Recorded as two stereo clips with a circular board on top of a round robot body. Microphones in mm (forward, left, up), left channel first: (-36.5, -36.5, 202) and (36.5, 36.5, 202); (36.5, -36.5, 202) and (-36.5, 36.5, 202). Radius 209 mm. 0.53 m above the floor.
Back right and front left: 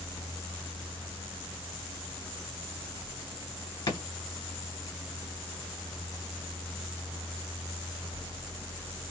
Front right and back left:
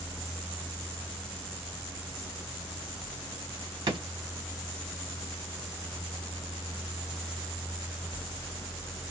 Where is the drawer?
Straight behind, 1.4 m.